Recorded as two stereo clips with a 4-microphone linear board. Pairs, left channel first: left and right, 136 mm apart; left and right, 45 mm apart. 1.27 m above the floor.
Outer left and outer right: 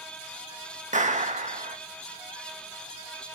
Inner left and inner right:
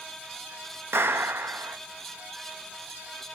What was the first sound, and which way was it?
A clap, 65° right (ahead or behind).